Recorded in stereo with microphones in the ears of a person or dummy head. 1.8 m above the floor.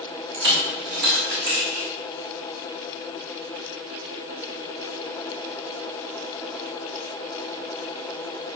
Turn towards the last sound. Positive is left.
turn(degrees=-50)  # may be behind; listen again after turning